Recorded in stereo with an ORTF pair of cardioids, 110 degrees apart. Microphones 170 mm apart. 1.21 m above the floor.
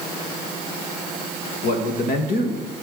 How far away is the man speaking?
About 1.5 m.